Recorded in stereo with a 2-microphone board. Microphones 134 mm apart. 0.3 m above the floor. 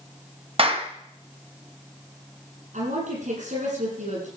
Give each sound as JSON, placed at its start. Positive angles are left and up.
{"t": 0.6, "sound": "a clap", "side_deg": -45, "distance_m": 1.5}
{"t": 2.7, "sound": "a woman speaking", "side_deg": -70, "distance_m": 9.5}